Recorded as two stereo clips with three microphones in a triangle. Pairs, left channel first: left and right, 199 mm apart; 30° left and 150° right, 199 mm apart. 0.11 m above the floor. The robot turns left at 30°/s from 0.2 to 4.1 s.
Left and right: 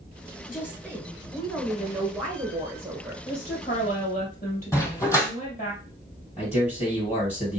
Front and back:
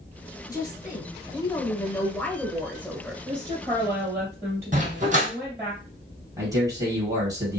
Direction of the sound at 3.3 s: 155° left.